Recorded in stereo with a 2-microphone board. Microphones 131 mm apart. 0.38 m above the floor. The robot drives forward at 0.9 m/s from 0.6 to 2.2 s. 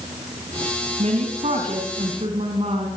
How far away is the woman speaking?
About 3.5 m.